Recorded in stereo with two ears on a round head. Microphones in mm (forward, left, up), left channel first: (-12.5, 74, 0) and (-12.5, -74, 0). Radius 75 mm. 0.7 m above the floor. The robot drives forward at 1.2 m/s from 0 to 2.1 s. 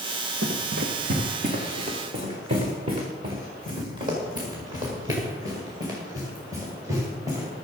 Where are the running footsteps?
75° right (ahead or behind), 2.5 m; by 7.5 s 20° right (ahead or behind), 7 m.